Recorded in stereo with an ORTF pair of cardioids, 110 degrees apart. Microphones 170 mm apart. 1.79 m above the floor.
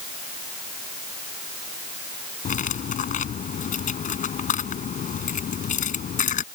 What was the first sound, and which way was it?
Cutlery clinking, 45° left.